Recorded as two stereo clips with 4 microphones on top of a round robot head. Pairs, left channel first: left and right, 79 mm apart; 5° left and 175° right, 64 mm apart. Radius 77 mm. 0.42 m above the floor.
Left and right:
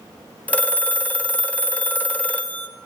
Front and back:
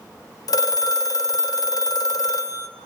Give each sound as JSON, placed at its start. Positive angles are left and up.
{"t": 0.5, "sound": "a phone ringing", "azimuth_deg": 20, "distance_m": 0.8}